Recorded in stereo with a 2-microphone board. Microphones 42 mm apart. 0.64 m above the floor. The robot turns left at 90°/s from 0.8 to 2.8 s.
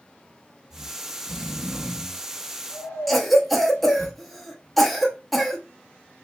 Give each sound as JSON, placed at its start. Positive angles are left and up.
{"t": 0.7, "sound": "snoring", "side_deg": -60, "distance_m": 0.6}
{"t": 3.1, "sound": "a cough", "side_deg": 0, "distance_m": 0.6}